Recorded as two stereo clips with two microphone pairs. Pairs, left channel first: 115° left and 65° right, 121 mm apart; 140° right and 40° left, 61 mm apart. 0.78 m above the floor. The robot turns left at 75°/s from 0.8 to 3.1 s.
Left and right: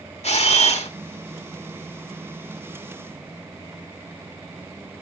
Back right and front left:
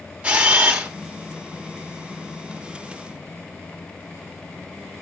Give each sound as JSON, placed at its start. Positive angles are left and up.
{"t": 0.2, "sound": "a camera shutter", "azimuth_deg": 105, "distance_m": 1.4}